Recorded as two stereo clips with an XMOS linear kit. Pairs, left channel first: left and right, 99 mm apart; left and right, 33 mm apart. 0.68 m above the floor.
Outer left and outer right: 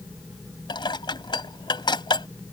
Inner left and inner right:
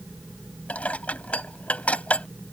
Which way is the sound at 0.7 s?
50° left (ahead or behind).